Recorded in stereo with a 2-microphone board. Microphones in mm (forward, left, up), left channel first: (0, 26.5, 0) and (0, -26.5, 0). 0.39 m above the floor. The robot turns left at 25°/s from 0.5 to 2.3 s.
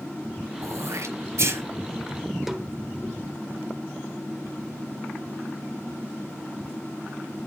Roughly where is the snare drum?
Centre.